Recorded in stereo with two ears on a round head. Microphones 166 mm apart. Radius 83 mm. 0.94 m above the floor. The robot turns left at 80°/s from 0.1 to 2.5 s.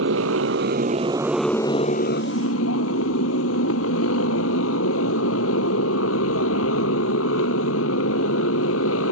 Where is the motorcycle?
75° right; by 9.1 s 95° left.